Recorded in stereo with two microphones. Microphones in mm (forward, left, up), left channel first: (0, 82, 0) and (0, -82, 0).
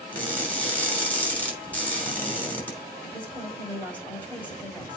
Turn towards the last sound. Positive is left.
turn(degrees=10)  # may be behind; listen again after turning